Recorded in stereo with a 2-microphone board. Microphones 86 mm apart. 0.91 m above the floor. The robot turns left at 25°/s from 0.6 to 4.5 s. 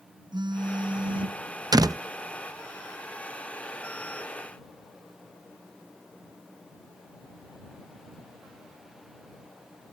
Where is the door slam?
50° right (ahead or behind); by 2.0 s 45° right (ahead or behind).